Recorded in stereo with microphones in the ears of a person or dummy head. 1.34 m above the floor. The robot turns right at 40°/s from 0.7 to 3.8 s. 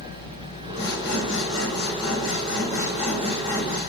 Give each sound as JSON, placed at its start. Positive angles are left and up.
{"t": 0.8, "sound": "sawing", "azimuth_deg": 55, "distance_m": 7.5}